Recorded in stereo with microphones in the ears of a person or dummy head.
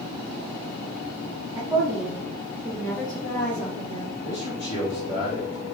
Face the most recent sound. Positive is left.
turn(degrees=50)  # may be behind; listen again after turning